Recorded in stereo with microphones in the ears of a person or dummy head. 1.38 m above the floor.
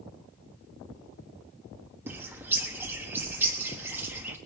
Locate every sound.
2.1 s a bird: 10° right (ahead or behind), 1.3 m